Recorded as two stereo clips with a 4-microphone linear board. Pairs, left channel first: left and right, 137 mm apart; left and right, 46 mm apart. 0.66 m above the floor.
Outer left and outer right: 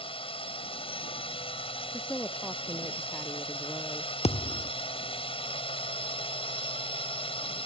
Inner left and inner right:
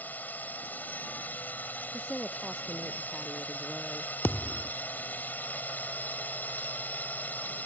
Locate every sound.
0.0 s a drone: 40° left (ahead or behind)
1.9 s a woman speaking: 10° left (ahead or behind)
4.2 s a thud: 50° left (ahead or behind)